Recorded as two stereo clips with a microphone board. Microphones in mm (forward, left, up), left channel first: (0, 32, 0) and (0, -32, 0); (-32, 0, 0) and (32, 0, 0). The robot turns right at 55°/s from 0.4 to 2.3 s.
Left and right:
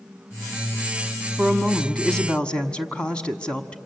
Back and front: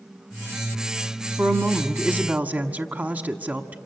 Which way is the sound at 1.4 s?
20° right.